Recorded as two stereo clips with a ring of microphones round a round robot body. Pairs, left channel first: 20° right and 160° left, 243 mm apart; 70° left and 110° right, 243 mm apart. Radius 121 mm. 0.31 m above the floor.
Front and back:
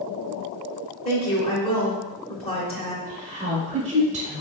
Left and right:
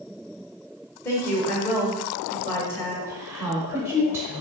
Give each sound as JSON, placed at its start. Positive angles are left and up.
{"t": 1.1, "sound": "a woman speaking", "azimuth_deg": 0, "distance_m": 0.9}
{"t": 3.0, "sound": "a woman speaking", "azimuth_deg": 175, "distance_m": 0.9}